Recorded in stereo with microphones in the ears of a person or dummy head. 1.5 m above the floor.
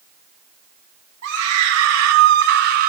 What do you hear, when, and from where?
1.2 s a scream: 85° right, 1.4 m; by 2.9 s 50° right (ahead or behind), 0.7 m